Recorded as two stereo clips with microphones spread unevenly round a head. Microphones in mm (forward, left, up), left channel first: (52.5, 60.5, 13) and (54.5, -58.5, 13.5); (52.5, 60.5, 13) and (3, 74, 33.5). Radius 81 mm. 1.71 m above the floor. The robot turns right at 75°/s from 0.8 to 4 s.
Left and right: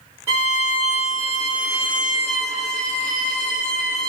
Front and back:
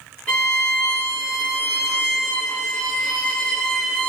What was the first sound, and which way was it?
A violin, 115° right.